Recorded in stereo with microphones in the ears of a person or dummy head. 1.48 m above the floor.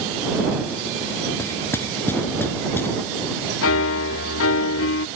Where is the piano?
75° left (ahead or behind).